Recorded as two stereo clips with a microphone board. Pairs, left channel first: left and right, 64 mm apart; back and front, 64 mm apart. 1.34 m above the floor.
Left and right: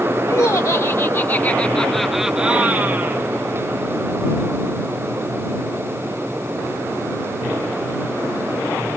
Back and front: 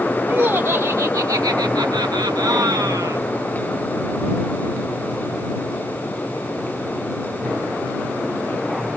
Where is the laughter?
55° left; by 3.2 s 35° right.